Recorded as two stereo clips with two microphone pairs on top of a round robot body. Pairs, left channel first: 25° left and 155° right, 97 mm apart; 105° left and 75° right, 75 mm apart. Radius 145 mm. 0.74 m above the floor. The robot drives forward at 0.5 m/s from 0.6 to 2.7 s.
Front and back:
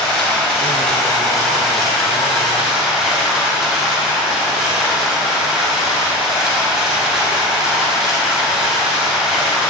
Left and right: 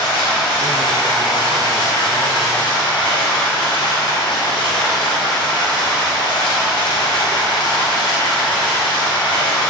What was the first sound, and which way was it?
Running water, 110° left.